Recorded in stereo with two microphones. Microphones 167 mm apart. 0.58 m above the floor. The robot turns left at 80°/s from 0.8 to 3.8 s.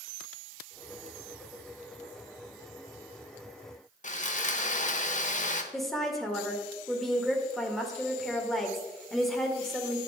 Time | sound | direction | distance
4.0 | sawing | 50° left (ahead or behind) | 0.9 m
5.7 | a woman speaking | centre (ahead or behind) | 1.7 m